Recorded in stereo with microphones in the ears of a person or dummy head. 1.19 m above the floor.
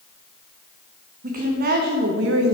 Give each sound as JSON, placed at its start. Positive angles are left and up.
{"t": 1.2, "sound": "a woman speaking", "side_deg": -40, "distance_m": 1.6}